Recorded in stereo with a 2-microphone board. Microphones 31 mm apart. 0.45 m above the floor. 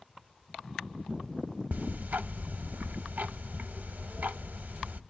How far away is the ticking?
About 0.5 m.